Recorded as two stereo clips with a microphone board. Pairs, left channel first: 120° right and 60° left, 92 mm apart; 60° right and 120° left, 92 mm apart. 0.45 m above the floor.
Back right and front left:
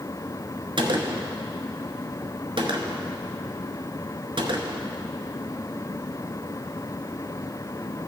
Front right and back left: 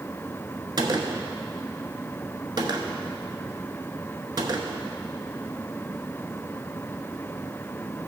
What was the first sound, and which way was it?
A gunshot, 80° left.